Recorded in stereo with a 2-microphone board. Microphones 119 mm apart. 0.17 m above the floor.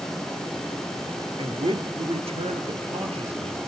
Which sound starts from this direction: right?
A man speaking, at 1.4 s.